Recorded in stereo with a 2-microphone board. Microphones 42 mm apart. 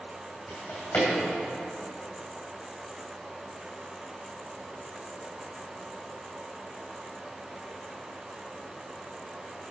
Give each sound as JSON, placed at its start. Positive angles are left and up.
{"t": 0.5, "sound": "a drawer", "side_deg": 60, "distance_m": 2.5}